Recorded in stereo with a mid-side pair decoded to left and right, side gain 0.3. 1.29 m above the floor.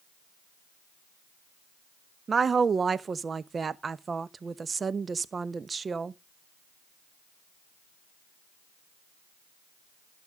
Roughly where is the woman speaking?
Ahead right.